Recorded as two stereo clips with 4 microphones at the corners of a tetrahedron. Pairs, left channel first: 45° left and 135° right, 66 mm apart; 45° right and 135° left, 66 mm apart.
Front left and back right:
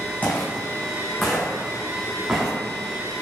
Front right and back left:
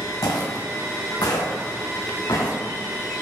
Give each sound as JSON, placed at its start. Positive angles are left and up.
{"t": 0.2, "sound": "footsteps", "azimuth_deg": -20, "distance_m": 1.2}